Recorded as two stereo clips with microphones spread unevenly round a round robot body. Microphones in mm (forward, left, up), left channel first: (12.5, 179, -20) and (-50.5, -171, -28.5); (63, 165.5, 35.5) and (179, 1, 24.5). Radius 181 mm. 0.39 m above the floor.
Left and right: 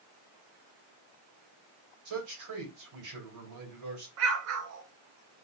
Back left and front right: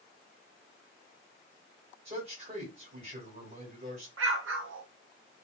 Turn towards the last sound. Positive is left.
turn(degrees=-50)